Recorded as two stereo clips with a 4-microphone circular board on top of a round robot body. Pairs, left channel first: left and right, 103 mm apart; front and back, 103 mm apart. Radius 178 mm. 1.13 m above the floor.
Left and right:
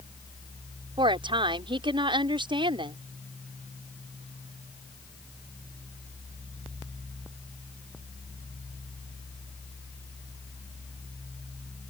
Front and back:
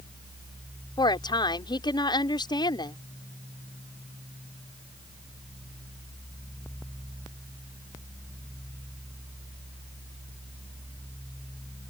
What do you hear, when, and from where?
1.0 s a woman speaking: 50° right